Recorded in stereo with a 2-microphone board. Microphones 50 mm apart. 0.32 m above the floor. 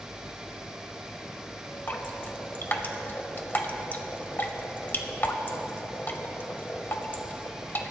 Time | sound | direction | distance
1.9 | dripping | 40° left (ahead or behind) | 0.9 m